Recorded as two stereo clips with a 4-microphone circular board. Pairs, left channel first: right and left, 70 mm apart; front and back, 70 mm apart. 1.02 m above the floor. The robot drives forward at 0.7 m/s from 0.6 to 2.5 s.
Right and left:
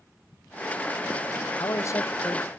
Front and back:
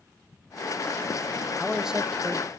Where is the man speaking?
75° right, 0.6 m; by 2.5 s 140° right, 0.8 m.